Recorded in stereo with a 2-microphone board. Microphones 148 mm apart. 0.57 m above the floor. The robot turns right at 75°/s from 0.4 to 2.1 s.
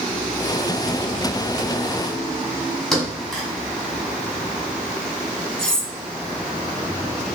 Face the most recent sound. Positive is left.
turn(degrees=5)  # may be behind; listen again after turning